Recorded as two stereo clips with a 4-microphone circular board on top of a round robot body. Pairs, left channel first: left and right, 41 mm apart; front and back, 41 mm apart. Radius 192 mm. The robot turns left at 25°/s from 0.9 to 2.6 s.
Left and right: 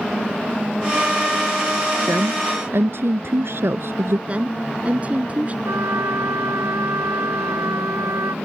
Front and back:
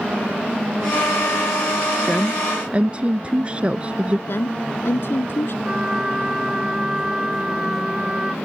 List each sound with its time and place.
2.1 s a woman speaking: 100° right; by 4.2 s 115° right
4.3 s a woman speaking: 30° right
5.7 s a trumpet: 105° right